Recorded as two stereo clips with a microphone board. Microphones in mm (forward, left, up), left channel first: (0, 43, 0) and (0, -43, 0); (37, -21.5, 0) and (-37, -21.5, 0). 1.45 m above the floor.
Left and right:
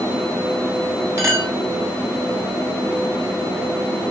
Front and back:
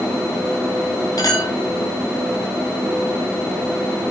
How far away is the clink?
About 6 m.